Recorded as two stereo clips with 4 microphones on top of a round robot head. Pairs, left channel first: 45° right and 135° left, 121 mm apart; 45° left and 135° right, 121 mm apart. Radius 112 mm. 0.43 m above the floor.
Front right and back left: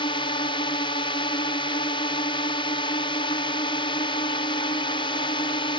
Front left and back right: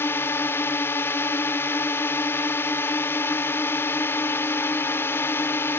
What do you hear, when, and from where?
0.0 s a drone: 20° right